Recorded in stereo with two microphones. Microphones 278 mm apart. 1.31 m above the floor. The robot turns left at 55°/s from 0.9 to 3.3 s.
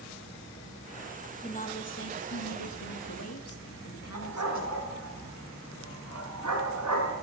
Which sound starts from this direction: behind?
A woman speaking, at 1.4 s.